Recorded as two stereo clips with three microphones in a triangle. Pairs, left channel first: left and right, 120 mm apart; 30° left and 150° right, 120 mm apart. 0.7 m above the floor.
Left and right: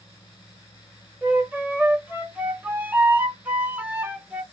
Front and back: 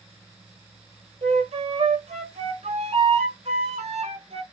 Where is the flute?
165° right, 0.6 m.